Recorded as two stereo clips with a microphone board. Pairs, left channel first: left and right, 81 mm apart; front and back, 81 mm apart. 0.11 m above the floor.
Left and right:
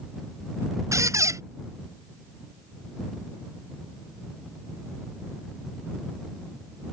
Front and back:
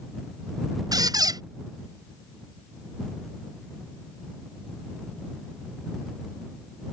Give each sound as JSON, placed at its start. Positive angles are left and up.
{"t": 0.9, "sound": "a squeak", "azimuth_deg": -140}